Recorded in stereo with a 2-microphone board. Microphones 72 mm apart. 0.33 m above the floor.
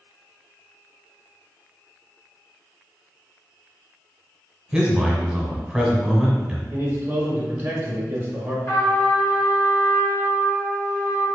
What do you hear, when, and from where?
4.7 s a man speaking: 10° right (ahead or behind), 1.1 m
6.7 s a man speaking: 25° right (ahead or behind), 1.4 m
8.7 s a trumpet: 45° left (ahead or behind), 1.7 m